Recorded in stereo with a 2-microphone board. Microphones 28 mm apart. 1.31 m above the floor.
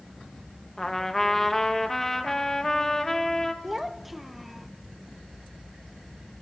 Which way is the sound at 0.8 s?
10° left (ahead or behind).